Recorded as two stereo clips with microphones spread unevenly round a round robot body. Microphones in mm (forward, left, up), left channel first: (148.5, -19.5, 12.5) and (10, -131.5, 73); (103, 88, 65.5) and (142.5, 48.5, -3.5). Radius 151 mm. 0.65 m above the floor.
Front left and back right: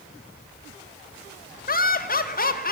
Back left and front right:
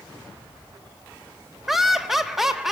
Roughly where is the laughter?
Ahead.